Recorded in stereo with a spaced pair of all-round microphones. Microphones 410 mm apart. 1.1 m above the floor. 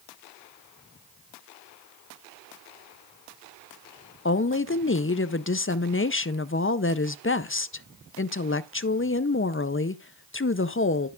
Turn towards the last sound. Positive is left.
turn(degrees=30)  # may be behind; listen again after turning